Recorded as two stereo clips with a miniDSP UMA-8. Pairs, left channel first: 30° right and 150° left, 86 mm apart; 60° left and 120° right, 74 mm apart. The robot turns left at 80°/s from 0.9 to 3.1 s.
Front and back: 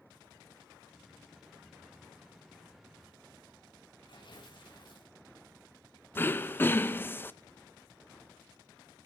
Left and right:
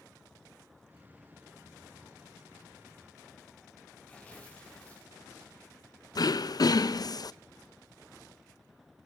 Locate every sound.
4.1 s tearing paper: 10° right, 4 m
6.2 s throat clearing: 35° left, 0.6 m